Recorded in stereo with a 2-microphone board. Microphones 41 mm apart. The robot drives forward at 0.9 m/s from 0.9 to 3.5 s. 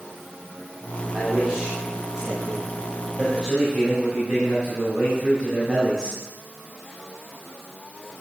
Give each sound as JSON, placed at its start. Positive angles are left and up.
{"t": 1.1, "sound": "a man speaking", "side_deg": -25, "distance_m": 2.5}